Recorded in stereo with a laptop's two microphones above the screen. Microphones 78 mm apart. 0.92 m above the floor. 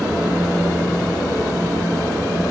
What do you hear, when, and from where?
0.0 s a fan: 30° right (ahead or behind), 4.5 m